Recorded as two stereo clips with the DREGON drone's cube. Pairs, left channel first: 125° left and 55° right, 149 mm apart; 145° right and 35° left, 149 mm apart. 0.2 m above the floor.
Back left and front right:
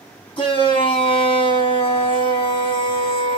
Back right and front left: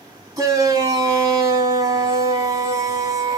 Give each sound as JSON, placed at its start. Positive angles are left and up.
{"t": 0.4, "sound": "a shout", "azimuth_deg": 90, "distance_m": 2.0}